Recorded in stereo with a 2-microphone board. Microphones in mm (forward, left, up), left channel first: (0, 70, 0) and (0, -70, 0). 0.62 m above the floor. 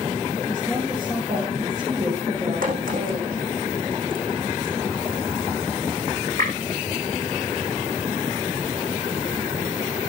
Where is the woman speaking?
25° right (ahead or behind), 8 m.